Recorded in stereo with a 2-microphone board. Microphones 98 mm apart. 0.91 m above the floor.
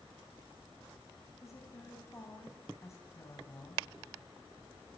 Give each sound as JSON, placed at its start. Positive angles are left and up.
{"t": 1.4, "sound": "a woman speaking", "side_deg": 30, "distance_m": 5.0}